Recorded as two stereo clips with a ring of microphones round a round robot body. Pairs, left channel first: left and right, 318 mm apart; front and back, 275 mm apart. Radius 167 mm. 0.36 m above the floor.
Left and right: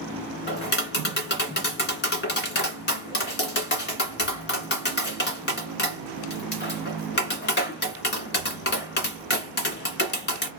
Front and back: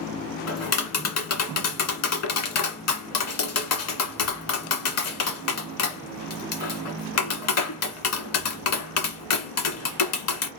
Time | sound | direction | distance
0.5 | tapping | 30° left | 1.9 m